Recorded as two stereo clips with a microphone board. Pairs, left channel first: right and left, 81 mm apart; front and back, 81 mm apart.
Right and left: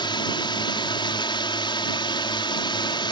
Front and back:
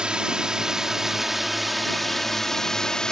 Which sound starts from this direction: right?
A drone, at 0.0 s.